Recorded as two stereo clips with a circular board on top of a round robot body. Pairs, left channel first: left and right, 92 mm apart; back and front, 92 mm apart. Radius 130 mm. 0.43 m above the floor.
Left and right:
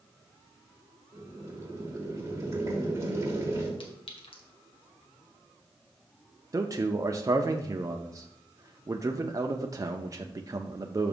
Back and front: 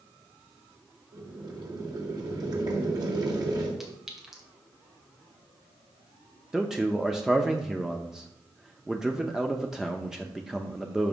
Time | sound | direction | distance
1.1 | boiling | 35° right | 2.5 m
3.8 | a clink | 85° left | 1.9 m
6.5 | a man speaking | 80° right | 0.8 m